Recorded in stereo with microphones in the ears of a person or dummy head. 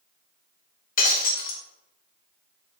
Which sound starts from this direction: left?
Breaking glass, at 1.0 s.